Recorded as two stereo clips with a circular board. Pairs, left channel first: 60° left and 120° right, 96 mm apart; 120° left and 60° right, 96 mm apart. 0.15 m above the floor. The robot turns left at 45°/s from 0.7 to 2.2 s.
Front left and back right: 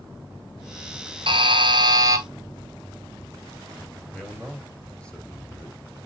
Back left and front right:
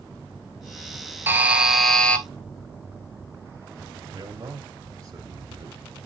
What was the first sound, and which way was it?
A buzzer, 125° right.